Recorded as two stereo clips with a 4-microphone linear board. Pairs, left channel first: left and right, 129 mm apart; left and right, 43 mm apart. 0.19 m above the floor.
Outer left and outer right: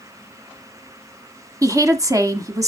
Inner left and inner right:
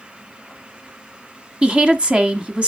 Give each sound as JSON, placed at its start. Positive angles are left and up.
{"t": 1.6, "sound": "a woman speaking", "side_deg": -25, "distance_m": 1.3}